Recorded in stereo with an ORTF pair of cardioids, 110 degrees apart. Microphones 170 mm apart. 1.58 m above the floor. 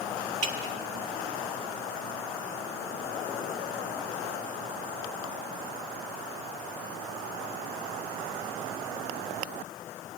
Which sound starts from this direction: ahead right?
Dripping, at 0.4 s.